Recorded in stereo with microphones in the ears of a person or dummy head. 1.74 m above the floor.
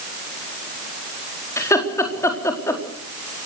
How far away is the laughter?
About 4 m.